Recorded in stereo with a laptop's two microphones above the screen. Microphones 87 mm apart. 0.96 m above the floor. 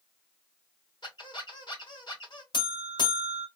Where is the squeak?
60° left (ahead or behind), 2 m.